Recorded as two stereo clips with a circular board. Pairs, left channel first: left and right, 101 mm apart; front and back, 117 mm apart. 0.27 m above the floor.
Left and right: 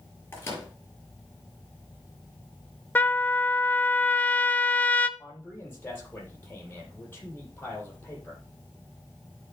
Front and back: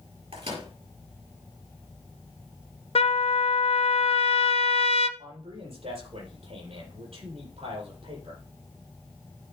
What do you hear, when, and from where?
0.3 s a microwave: 155° left, 5 m
3.0 s a trumpet: 20° left, 0.7 m
5.2 s a man speaking: 160° left, 7 m